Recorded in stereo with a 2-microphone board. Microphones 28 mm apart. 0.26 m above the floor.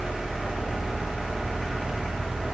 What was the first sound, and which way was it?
Only background noise.